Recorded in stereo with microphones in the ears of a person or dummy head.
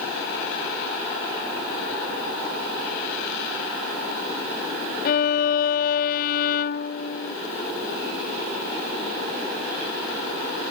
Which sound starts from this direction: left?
A violin, at 5.0 s.